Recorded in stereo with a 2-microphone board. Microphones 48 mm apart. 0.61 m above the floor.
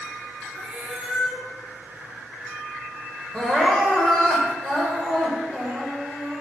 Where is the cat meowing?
10° right (ahead or behind), 2.5 m.